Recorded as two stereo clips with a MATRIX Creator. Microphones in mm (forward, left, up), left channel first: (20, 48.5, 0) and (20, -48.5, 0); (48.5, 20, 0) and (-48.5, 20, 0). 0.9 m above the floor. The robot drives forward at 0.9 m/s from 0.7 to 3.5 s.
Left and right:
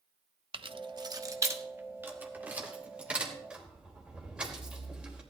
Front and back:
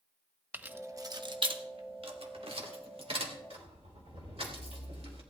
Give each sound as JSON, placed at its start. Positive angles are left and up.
{"t": 0.5, "sound": "keys jangling", "azimuth_deg": -110, "distance_m": 0.6}